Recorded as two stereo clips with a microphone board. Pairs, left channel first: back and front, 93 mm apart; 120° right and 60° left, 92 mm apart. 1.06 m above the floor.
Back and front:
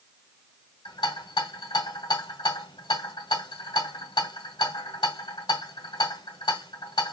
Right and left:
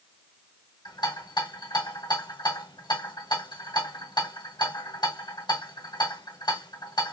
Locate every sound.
0.8 s a rattle: 150° right, 1.5 m